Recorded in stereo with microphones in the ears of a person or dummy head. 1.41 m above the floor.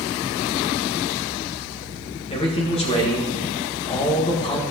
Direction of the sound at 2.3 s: 25° left (ahead or behind).